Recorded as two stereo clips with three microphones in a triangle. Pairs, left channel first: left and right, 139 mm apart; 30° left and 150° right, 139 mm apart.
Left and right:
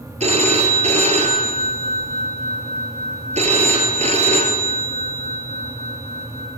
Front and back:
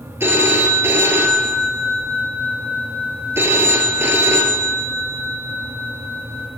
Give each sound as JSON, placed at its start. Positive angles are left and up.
{"t": 0.2, "sound": "a phone ringing", "azimuth_deg": -80, "distance_m": 1.3}